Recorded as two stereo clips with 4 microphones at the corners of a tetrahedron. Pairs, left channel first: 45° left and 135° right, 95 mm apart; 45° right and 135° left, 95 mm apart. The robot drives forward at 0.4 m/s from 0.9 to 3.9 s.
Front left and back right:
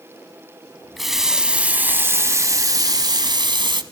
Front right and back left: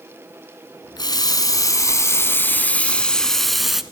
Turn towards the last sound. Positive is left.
turn(degrees=-140)